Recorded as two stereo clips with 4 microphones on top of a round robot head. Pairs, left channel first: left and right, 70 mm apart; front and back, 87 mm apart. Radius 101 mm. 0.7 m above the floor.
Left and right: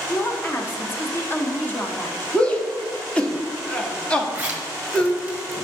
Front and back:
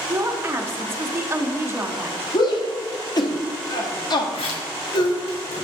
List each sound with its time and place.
0.1 s a woman speaking: 135° left, 1.4 m
2.3 s a shout: 20° left, 1.6 m
4.3 s a zipper: 20° right, 1.6 m